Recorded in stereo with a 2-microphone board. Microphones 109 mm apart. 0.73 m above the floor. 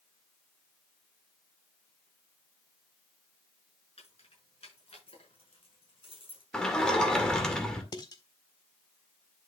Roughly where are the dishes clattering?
Left.